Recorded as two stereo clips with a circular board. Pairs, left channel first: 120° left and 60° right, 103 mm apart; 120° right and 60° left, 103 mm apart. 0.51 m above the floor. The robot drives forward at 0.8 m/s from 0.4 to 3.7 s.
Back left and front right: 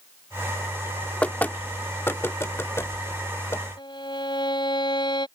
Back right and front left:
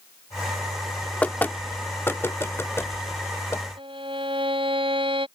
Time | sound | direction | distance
1.2 | knocking | straight behind | ?
3.8 | a violin | 85° left | ?